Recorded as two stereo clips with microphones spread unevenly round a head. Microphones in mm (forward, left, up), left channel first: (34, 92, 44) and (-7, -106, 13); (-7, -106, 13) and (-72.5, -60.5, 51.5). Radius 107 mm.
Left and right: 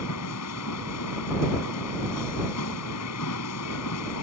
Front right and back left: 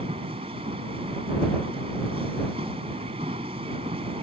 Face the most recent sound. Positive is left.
turn(degrees=90)